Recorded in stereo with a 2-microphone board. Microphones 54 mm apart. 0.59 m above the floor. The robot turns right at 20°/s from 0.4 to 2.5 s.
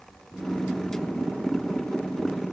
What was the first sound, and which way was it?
Only background noise.